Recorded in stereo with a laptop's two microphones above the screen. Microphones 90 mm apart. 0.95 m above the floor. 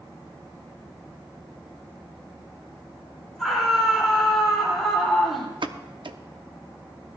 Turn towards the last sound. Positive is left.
turn(degrees=-65)  # may be behind; listen again after turning